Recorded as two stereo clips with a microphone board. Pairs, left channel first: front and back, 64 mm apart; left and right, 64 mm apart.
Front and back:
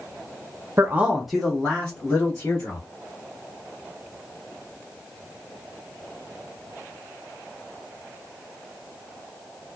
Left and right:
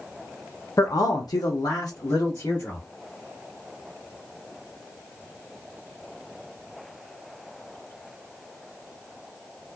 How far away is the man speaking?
About 0.5 m.